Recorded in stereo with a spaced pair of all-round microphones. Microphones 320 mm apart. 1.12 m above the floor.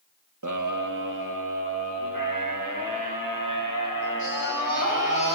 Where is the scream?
65° right (ahead or behind), 1.4 m; by 5.4 s 80° right, 9 m.